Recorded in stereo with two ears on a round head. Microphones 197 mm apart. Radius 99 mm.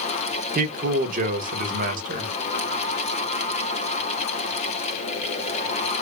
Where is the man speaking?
40° right (ahead or behind), 1.0 m.